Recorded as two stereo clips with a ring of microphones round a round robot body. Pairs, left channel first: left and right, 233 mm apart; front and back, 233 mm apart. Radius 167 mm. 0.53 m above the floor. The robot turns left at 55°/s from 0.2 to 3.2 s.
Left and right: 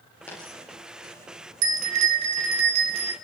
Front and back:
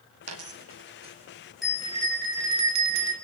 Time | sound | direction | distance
0.3 | a dropped coin | 175° left | 2 m
1.6 | a bell | 90° right | 2 m